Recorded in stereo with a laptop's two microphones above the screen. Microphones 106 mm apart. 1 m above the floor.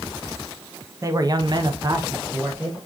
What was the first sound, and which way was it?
A man speaking, 30° right (ahead or behind).